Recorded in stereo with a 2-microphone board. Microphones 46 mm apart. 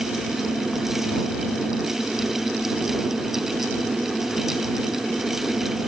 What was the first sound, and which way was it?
Only background noise.